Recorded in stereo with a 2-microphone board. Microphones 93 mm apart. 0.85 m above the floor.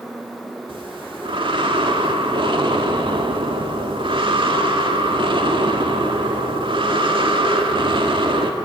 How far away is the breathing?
About 1.8 m.